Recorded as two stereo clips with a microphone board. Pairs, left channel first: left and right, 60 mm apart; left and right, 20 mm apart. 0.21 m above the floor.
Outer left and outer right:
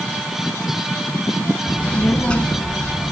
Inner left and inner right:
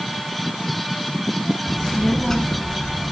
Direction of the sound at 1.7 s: 15° left (ahead or behind).